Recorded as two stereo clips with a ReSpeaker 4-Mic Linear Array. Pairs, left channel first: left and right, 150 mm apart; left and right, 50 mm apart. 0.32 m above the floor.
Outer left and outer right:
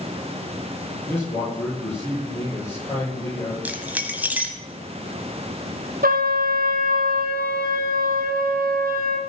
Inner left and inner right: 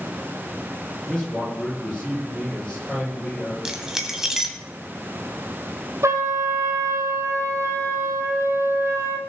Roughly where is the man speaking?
Centre.